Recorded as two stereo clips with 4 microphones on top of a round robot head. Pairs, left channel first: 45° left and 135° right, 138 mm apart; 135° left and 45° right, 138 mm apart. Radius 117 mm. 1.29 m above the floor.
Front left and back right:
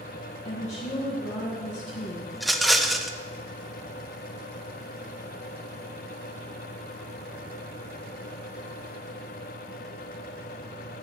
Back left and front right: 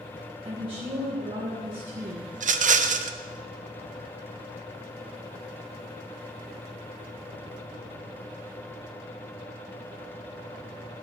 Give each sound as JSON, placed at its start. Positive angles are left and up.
{"t": 0.5, "sound": "a woman speaking", "azimuth_deg": 10, "distance_m": 1.8}
{"t": 2.3, "sound": "a rattle", "azimuth_deg": -45, "distance_m": 0.6}